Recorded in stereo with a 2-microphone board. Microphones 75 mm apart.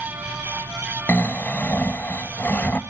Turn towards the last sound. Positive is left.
turn(degrees=25)  # may be behind; listen again after turning